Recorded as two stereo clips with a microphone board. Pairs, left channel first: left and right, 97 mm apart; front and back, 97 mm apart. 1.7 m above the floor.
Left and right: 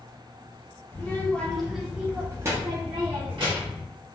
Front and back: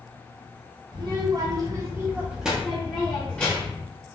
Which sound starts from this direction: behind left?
A child speaking, at 0.9 s.